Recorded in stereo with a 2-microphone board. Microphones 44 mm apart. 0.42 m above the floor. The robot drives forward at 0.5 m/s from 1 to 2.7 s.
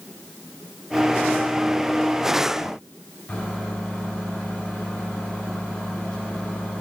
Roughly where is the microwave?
Left.